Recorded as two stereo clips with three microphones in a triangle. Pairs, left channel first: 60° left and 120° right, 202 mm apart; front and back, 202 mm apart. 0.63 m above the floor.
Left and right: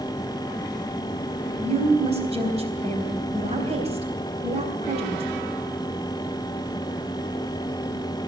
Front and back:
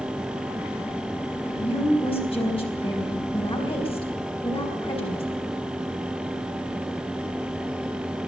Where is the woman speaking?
60° right, 4 m.